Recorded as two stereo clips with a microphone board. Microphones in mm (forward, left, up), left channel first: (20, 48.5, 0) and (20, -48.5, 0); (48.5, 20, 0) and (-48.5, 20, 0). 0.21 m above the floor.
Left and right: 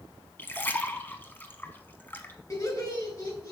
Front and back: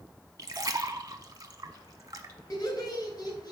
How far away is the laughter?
About 2 m.